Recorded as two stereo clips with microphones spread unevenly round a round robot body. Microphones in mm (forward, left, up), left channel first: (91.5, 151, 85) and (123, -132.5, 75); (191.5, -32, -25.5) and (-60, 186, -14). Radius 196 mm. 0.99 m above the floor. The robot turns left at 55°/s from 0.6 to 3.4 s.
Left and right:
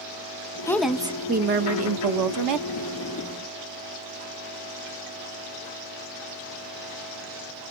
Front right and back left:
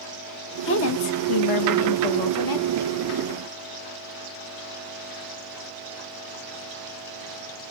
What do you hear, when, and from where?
0.7 s a woman speaking: 15° left, 0.8 m; by 2.7 s 95° right, 0.8 m